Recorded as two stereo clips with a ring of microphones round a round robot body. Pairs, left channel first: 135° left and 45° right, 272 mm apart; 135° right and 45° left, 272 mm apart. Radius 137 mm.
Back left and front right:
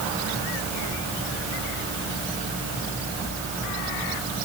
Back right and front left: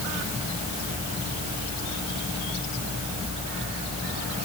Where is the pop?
No pop in this recording.